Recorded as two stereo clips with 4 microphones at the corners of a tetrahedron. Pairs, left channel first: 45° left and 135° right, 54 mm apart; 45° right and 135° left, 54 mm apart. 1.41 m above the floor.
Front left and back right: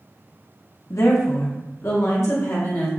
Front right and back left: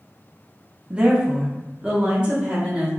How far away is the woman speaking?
About 0.8 m.